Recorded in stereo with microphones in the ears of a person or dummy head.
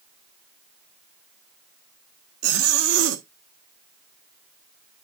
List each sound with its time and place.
2.4 s a zipper: 80° right, 1.5 m